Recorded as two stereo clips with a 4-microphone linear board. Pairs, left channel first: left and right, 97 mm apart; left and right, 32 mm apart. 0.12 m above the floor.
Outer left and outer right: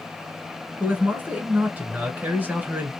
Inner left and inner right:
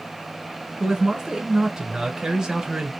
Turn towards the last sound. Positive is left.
turn(degrees=-20)  # may be behind; listen again after turning